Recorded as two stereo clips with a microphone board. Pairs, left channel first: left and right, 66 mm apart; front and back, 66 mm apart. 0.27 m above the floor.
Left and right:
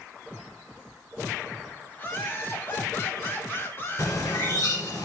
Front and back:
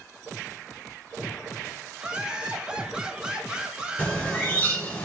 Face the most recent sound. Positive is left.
turn(degrees=60)